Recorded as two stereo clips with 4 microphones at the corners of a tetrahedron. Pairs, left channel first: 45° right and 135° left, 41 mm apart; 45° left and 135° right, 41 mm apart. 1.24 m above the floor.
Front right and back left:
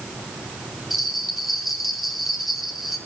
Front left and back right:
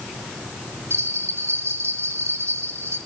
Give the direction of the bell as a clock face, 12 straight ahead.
5 o'clock.